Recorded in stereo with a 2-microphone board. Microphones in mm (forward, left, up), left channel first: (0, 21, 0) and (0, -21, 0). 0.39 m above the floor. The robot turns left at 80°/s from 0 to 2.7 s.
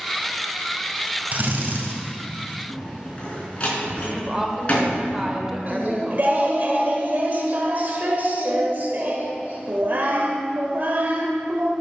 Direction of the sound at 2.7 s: 30° left (ahead or behind).